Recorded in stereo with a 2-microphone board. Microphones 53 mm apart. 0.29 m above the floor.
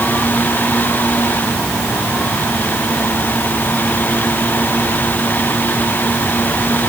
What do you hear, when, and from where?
Only background noise.